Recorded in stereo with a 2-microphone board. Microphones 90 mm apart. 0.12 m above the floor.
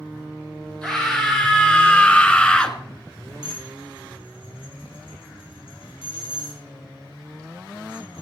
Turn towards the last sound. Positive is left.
turn(degrees=80)